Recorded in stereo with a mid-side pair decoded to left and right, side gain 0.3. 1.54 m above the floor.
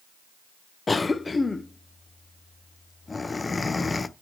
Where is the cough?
40° left, 0.5 m.